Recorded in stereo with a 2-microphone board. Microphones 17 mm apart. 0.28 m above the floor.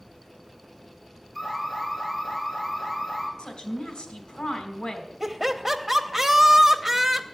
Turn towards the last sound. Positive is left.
turn(degrees=-20)  # may be behind; listen again after turning